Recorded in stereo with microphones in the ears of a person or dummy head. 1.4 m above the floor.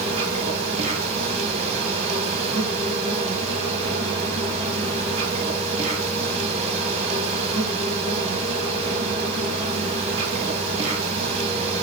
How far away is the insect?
About 2 m.